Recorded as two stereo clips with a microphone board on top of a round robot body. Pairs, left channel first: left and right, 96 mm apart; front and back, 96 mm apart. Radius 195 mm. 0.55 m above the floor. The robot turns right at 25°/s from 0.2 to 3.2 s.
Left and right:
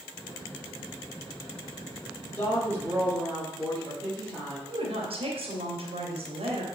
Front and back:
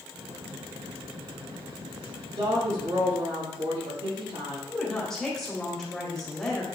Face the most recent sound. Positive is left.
turn(degrees=-85)